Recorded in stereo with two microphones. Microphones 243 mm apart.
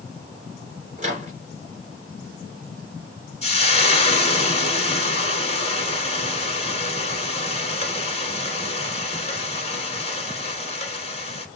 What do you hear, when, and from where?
1.0 s a microwave: 30° right (ahead or behind), 1.9 m
3.4 s frying: 25° left (ahead or behind), 1.0 m